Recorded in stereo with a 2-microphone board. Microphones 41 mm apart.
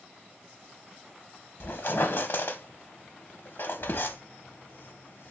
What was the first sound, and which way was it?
A squeak, 60° left (ahead or behind).